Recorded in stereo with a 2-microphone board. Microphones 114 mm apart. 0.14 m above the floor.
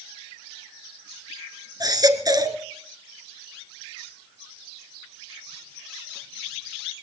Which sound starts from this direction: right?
A baby crying, at 1.8 s.